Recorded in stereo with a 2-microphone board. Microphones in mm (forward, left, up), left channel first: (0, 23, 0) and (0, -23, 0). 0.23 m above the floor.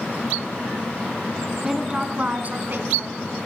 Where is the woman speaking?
10° right (ahead or behind), 2.5 m; by 3.2 s 60° right (ahead or behind), 2.5 m.